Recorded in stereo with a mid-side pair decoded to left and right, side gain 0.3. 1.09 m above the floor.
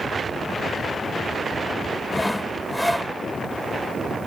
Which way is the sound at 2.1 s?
5° left.